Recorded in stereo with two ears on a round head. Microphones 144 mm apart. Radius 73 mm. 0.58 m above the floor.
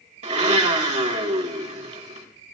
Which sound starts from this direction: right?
A blender, at 0.2 s.